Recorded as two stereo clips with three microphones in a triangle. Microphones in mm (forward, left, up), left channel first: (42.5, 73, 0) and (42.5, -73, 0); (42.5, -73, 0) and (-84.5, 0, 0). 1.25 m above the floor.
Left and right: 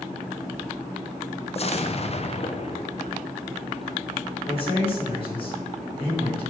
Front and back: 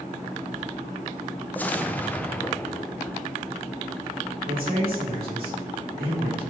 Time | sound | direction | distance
1.6 | an explosion | 45° left | 0.6 m
4.5 | a man speaking | 140° left | 3.5 m